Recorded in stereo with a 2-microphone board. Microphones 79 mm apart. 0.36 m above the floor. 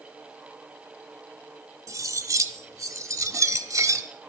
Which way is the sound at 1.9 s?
45° right (ahead or behind).